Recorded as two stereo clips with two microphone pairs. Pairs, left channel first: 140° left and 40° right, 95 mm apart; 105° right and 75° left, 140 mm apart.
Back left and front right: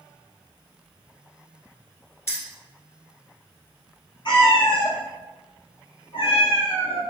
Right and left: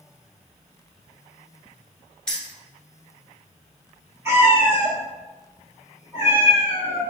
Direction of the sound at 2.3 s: Straight behind.